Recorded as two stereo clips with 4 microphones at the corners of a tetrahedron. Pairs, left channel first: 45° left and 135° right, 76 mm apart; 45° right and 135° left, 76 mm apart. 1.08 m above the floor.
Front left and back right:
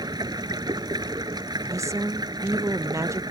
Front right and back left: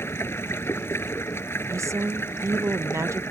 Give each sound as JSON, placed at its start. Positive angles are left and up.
{"t": 0.0, "sound": "running water", "azimuth_deg": -105}
{"t": 1.7, "sound": "a woman speaking", "azimuth_deg": 180}